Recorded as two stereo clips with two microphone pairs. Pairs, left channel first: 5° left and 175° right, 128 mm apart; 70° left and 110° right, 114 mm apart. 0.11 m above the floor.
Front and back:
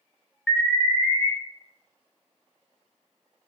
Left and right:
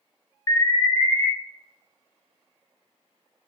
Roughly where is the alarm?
Left.